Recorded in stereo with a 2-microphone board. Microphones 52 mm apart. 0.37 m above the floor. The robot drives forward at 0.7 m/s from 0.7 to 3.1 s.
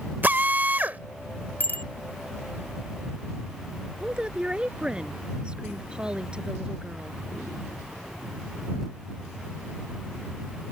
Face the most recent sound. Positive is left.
turn(degrees=-20)  # may be behind; listen again after turning